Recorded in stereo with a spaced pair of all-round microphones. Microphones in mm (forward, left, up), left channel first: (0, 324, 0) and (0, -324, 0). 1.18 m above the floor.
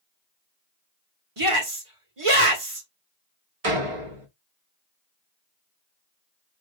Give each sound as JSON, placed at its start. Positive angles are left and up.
{"t": 1.4, "sound": "a shout", "side_deg": -50, "distance_m": 1.6}
{"t": 3.6, "sound": "a door slam", "side_deg": -55, "distance_m": 1.1}